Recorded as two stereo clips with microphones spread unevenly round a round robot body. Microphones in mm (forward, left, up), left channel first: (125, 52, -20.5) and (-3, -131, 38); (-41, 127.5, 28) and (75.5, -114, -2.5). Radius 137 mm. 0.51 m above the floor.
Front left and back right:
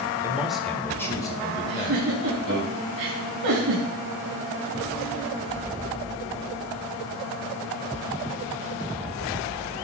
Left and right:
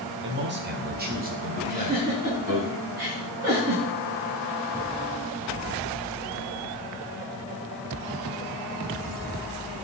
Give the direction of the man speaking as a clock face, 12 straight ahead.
1 o'clock.